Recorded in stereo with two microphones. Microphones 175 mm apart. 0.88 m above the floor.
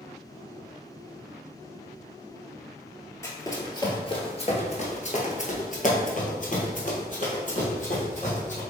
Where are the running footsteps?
15° left (ahead or behind), 1.3 m; by 8.6 s 45° left (ahead or behind), 2.5 m.